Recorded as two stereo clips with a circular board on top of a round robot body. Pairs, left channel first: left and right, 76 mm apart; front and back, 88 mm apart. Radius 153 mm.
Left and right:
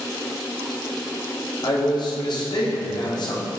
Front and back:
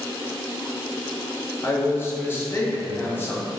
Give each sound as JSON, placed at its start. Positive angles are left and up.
{"t": 1.6, "sound": "a man speaking", "azimuth_deg": 65, "distance_m": 1.0}